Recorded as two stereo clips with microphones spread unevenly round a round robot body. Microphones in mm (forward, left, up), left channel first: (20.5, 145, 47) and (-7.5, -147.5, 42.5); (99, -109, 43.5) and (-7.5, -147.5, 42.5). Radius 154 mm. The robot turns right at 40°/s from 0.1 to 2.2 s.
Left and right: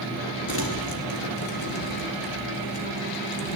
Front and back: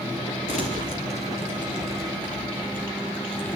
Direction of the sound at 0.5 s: 30° left.